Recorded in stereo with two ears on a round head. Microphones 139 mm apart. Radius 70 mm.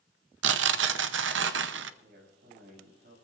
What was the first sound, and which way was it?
Tearing paper, 85° right.